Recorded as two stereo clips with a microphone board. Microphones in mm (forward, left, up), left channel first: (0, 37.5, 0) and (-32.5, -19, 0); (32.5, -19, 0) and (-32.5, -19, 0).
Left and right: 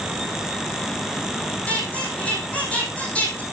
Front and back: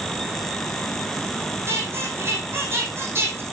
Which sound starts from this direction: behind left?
A squeak, at 1.7 s.